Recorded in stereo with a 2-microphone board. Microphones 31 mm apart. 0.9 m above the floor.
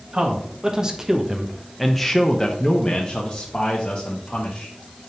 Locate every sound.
0.1 s a man speaking: 30° right (ahead or behind), 1.4 m; by 4.7 s 50° left (ahead or behind), 1.8 m